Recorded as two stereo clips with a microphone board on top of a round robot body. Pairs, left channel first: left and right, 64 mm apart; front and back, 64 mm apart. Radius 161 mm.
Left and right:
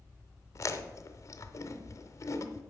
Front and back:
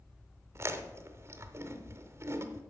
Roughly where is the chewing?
Behind left.